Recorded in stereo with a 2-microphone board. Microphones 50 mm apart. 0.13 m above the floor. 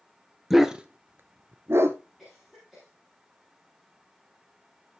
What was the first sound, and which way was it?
A dog barking, 5° right (ahead or behind).